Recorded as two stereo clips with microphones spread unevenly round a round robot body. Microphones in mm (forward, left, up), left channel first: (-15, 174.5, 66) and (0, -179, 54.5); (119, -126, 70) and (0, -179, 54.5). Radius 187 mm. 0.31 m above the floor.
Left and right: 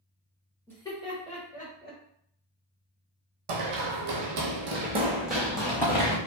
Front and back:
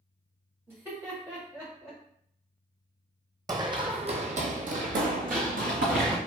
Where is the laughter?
175° left, 1.2 m; by 2.0 s 150° left, 1.6 m.